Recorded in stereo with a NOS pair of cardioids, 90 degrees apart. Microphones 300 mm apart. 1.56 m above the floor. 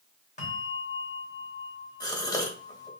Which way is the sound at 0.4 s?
25° left.